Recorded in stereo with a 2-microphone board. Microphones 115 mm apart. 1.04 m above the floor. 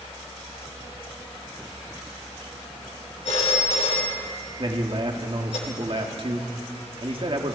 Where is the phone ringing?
65° left (ahead or behind), 3 m.